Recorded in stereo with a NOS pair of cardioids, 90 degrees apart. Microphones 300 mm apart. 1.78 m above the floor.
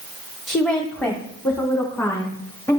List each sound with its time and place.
0.5 s a woman speaking: straight ahead, 1.1 m; by 2.8 s 10° left, 3.5 m